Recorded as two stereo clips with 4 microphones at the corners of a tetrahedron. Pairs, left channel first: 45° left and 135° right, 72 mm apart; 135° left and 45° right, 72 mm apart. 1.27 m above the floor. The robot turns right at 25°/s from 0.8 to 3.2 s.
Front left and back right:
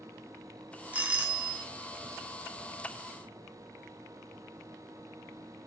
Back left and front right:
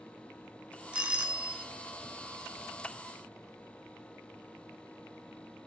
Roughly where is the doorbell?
Right.